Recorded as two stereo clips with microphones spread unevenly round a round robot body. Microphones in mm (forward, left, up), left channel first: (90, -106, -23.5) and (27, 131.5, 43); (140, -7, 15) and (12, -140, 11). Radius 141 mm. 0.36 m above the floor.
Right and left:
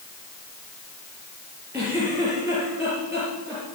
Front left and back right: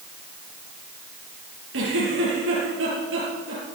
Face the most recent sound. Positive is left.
turn(degrees=-175)